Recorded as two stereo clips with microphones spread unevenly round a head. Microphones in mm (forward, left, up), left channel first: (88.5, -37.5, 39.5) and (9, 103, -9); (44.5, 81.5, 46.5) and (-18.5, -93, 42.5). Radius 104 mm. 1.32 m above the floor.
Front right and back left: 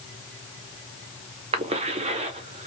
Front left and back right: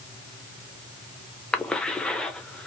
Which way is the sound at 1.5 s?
155° left.